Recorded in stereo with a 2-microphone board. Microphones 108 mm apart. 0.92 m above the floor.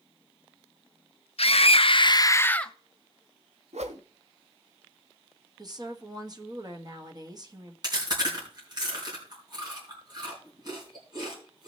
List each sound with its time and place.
1.4 s a scream: 65° left (ahead or behind), 0.8 m; by 2.7 s 5° left (ahead or behind), 0.7 m
3.7 s a whoosh: 85° right, 0.8 m
5.6 s a woman speaking: 35° right (ahead or behind), 1.4 m
7.8 s chewing: 40° right (ahead or behind), 4.5 m